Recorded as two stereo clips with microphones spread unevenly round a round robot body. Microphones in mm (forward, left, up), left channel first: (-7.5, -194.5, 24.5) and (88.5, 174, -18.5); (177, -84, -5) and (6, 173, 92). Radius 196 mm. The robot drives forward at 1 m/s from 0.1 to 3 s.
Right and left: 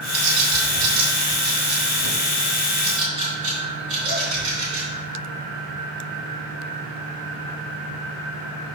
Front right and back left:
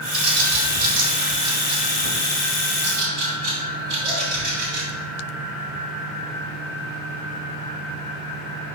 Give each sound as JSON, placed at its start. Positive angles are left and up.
{"t": 0.1, "sound": "a bird", "azimuth_deg": 70, "distance_m": 2.5}